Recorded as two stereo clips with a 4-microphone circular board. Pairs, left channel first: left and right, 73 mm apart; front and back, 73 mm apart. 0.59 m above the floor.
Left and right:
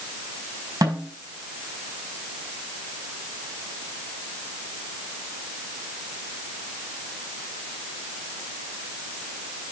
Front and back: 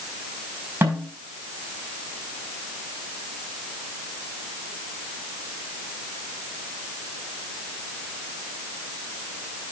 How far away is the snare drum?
About 6 m.